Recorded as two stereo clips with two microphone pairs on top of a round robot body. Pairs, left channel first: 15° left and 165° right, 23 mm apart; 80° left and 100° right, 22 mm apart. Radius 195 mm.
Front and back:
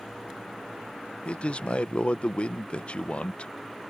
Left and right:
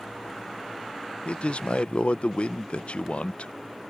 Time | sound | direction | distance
1.2 | a man speaking | 55° left | ?